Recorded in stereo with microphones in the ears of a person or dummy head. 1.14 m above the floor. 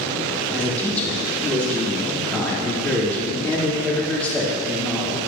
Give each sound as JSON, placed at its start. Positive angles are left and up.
{"t": 0.5, "sound": "a man speaking", "side_deg": 10, "distance_m": 3.0}